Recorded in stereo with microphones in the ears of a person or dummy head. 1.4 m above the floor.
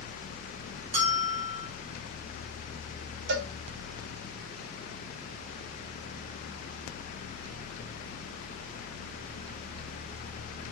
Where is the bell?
35° right (ahead or behind), 0.5 m.